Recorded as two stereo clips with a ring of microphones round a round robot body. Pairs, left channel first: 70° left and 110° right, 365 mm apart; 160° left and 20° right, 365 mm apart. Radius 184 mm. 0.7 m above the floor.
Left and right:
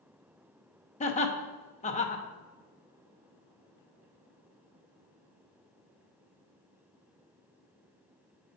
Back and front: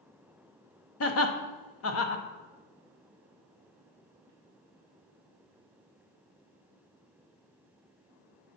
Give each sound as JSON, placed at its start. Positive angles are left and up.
{"t": 1.0, "sound": "laughter", "azimuth_deg": 130, "distance_m": 0.7}